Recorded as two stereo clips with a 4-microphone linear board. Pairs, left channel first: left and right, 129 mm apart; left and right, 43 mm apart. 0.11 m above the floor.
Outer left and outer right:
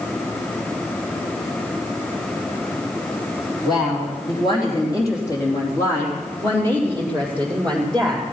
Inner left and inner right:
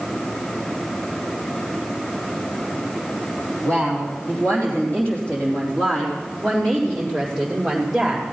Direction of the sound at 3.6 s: 40° left (ahead or behind).